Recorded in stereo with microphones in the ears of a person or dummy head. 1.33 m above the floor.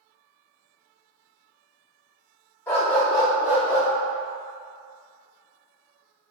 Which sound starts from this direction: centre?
A dog barking, at 2.7 s.